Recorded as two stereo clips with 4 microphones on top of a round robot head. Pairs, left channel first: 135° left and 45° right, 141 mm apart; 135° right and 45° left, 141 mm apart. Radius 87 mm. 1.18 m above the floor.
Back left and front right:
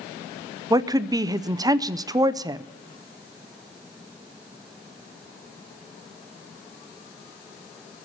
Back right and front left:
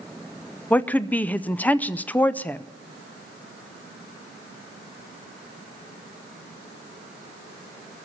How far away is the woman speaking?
About 0.5 m.